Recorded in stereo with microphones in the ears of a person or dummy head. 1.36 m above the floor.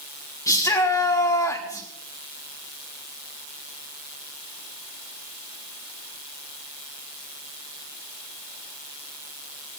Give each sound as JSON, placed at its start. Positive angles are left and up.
{"t": 0.5, "sound": "a shout", "side_deg": 20, "distance_m": 3.0}